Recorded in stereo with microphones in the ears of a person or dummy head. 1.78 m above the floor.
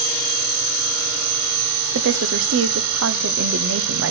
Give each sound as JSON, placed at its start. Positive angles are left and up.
{"t": 1.9, "sound": "a woman speaking", "side_deg": -60, "distance_m": 0.8}